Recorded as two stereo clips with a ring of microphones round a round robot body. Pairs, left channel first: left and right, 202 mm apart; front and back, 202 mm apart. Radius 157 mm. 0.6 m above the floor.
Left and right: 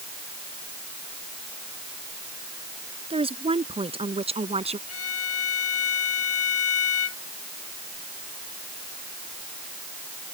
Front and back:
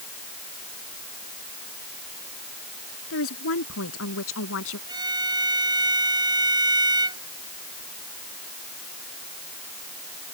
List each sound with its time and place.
3.1 s a woman speaking: 30° right
4.9 s a violin: 110° left